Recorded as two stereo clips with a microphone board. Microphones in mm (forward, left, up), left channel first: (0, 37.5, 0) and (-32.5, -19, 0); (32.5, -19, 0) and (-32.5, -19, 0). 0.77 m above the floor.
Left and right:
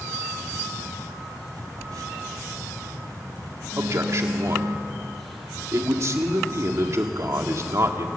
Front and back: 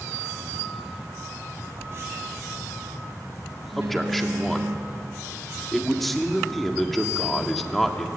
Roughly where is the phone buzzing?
Behind right.